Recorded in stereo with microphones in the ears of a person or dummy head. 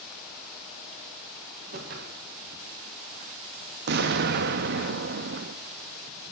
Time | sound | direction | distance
1.7 | a whoosh | 50° right (ahead or behind) | 1.3 m
3.9 | an explosion | 55° right (ahead or behind) | 0.8 m